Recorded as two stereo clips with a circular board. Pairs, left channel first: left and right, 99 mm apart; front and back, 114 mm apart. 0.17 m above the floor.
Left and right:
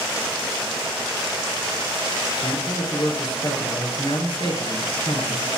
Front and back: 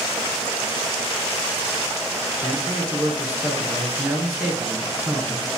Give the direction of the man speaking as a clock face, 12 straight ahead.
8 o'clock.